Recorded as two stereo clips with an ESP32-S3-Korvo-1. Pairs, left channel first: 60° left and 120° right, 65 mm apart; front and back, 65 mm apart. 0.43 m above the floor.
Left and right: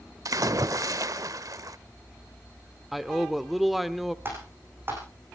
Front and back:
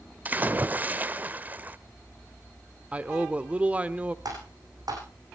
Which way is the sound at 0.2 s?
120° right.